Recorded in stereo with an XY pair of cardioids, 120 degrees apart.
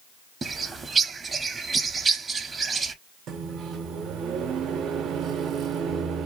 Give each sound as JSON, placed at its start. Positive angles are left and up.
{"t": 0.4, "sound": "a bird", "azimuth_deg": -30, "distance_m": 0.6}
{"t": 3.3, "sound": "a microwave", "azimuth_deg": -65, "distance_m": 0.7}